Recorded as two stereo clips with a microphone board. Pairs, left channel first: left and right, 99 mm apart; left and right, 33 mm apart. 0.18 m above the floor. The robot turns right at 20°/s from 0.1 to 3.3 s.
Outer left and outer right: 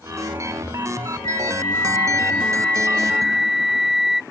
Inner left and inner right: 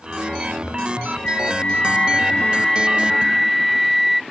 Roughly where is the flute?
Behind left.